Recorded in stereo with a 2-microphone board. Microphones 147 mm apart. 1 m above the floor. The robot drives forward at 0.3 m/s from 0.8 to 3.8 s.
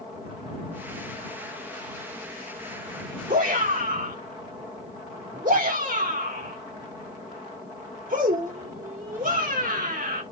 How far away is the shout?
About 2.5 m.